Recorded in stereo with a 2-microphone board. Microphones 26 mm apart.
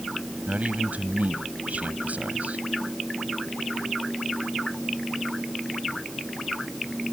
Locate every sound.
0.5 s a man speaking: 80° right